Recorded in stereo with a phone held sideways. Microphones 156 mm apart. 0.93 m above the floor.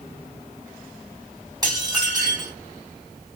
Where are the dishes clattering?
25° right (ahead or behind), 2.5 m.